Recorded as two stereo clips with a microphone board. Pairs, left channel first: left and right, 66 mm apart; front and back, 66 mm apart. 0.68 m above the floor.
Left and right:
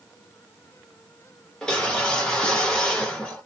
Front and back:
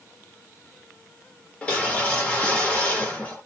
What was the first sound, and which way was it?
A whoosh, 35° left.